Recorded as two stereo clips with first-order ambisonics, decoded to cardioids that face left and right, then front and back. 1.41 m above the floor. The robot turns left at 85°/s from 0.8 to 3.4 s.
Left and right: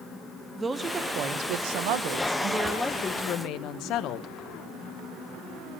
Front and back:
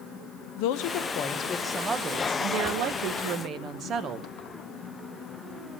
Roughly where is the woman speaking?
Ahead.